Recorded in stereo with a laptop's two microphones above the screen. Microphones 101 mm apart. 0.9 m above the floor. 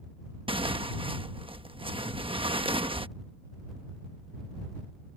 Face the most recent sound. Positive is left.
turn(degrees=-60)  # may be behind; listen again after turning